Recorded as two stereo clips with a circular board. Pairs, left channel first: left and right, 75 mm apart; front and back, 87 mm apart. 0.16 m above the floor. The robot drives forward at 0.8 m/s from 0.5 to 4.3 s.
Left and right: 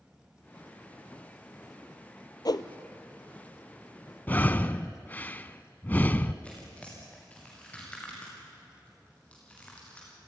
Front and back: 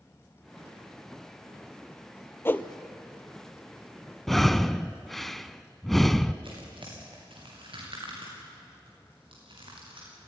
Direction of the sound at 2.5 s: 60° left.